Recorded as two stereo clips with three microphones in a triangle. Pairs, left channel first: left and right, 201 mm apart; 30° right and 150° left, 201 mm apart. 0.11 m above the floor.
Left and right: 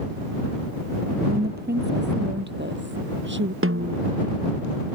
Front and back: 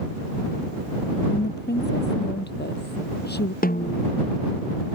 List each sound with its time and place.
1.3 s a woman speaking: 55° right; by 3.5 s 65° right
3.6 s a snare drum: 80° right